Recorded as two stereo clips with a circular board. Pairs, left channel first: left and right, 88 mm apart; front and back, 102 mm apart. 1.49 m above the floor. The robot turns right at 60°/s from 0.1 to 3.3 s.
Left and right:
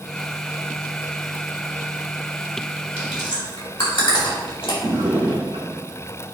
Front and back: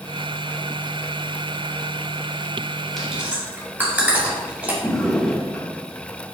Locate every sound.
3.0 s chewing: 90° left, 2.5 m; by 4.7 s 110° left, 2.5 m
4.8 s a drawer: 85° right, 1.7 m